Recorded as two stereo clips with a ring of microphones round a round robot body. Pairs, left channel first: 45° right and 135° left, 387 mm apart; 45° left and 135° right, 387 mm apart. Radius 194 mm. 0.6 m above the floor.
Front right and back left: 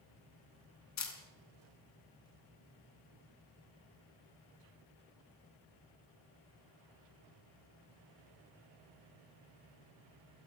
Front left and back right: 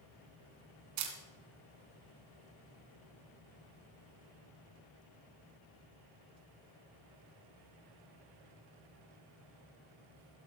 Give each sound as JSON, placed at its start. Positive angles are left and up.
{"t": 1.0, "sound": "a camera shutter", "azimuth_deg": -100, "distance_m": 3.5}